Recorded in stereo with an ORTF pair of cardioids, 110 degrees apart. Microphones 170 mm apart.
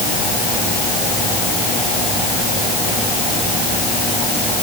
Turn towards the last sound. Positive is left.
No sound to turn to.